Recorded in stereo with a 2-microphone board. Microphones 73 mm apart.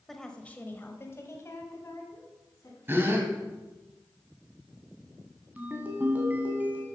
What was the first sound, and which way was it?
A woman speaking, 5° left (ahead or behind).